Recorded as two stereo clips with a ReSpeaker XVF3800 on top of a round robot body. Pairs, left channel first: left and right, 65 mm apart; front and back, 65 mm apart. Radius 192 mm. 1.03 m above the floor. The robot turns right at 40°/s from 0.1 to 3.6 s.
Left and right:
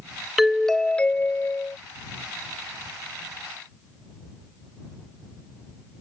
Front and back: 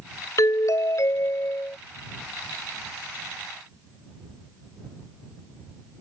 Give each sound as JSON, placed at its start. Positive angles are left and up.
{"t": 0.4, "sound": "a doorbell", "azimuth_deg": -5}